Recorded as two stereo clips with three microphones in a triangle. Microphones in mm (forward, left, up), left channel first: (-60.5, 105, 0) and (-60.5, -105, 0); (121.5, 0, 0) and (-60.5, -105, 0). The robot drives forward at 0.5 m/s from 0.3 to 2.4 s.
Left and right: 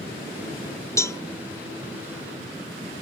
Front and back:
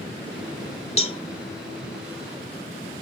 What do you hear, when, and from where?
1.0 s a cowbell: 30° left; by 1.2 s 35° left